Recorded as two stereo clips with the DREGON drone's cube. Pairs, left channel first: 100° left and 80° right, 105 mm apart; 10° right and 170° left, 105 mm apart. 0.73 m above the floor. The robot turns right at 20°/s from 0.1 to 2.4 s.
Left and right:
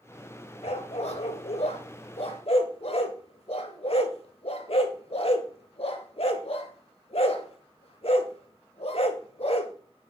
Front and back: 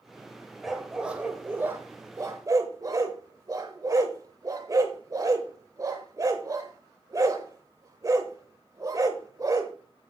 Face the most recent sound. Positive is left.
turn(degrees=115)